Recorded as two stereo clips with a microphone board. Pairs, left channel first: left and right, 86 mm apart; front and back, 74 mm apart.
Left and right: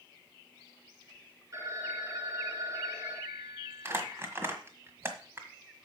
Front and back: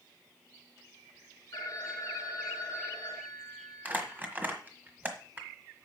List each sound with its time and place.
1.5 s a phone ringing: 35° right, 2 m
3.9 s crumpling: 130° right, 1.5 m